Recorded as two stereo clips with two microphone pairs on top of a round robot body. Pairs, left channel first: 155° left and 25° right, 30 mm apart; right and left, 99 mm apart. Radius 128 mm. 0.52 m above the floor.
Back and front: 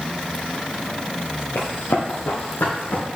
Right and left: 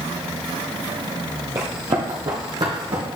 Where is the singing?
No singing in this recording.